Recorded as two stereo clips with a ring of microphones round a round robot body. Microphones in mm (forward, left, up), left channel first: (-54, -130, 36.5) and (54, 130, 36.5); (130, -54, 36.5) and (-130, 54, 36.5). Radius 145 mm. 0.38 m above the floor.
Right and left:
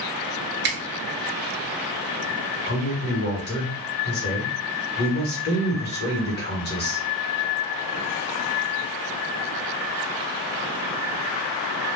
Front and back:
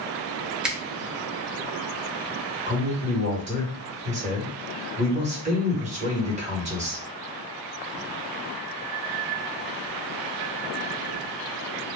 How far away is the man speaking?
About 1.3 m.